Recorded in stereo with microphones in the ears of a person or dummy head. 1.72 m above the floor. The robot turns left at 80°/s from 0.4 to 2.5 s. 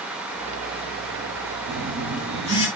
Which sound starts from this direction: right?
A phone buzzing, at 1.7 s.